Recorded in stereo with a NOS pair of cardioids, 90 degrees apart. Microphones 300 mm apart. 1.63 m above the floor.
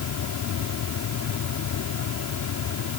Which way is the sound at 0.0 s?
65° left.